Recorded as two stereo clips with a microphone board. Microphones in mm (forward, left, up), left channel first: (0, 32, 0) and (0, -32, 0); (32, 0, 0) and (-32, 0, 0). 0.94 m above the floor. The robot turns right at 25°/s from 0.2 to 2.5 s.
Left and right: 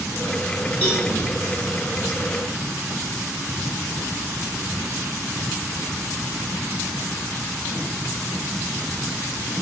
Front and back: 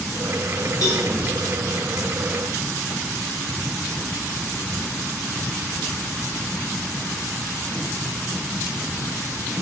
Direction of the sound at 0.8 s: 25° left.